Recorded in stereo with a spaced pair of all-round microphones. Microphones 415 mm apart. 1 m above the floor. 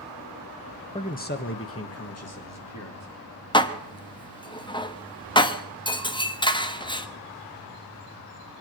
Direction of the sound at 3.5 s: 10° left (ahead or behind).